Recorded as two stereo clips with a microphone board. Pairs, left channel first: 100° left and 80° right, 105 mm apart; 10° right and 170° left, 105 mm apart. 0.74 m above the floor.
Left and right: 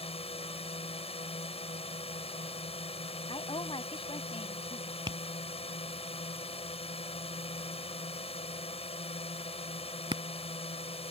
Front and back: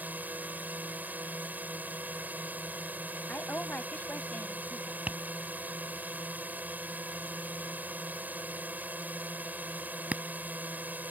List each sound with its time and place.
0.0 s a drone: 95° left
3.3 s a woman speaking: 65° left
5.1 s tapping: 115° right